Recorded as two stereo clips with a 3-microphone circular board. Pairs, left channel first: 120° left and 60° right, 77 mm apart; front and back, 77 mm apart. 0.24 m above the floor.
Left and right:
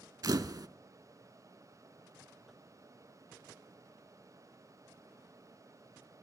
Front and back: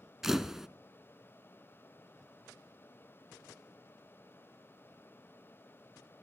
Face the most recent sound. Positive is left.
turn(degrees=-95)